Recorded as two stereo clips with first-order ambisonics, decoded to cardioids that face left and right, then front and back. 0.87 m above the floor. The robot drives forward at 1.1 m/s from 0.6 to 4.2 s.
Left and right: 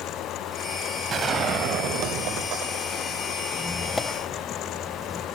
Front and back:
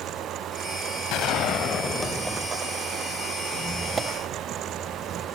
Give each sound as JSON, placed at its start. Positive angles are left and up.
{"t": 1.1, "sound": "a gunshot", "azimuth_deg": -30, "distance_m": 1.5}
{"t": 3.5, "sound": "a squeak", "azimuth_deg": 10, "distance_m": 0.7}